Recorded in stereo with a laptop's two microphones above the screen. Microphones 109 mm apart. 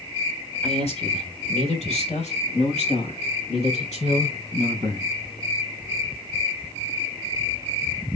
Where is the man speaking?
70° left (ahead or behind), 5 m; by 5.1 s 80° left, 8 m.